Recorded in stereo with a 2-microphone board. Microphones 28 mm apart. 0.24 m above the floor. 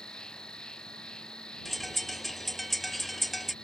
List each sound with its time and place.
0.0 s an insect: 30° left (ahead or behind)
1.6 s a bird: centre (ahead or behind)